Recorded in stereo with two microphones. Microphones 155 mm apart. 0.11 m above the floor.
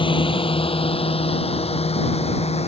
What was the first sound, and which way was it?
A drone, 35° left (ahead or behind).